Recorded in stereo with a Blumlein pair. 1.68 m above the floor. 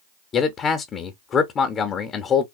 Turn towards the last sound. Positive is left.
turn(degrees=25)